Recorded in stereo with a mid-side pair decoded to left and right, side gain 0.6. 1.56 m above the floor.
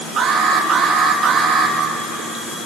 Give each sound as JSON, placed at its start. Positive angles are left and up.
{"t": 0.2, "sound": "an alarm", "azimuth_deg": -40, "distance_m": 3.0}